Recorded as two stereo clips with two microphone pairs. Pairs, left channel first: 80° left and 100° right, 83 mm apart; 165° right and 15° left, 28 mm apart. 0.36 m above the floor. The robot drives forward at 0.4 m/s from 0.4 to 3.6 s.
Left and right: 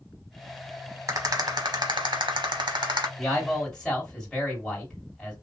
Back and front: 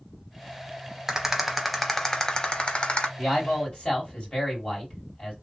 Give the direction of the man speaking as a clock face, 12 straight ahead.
6 o'clock.